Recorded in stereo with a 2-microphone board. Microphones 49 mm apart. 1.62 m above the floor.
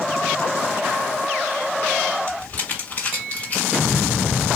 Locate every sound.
2.3 s crumpling: 35° left (ahead or behind), 2 m